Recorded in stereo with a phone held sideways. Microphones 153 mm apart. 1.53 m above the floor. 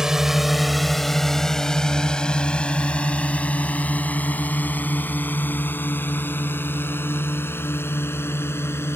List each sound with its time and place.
0.0 s a drone: 5° right (ahead or behind); by 9.0 s 15° left (ahead or behind)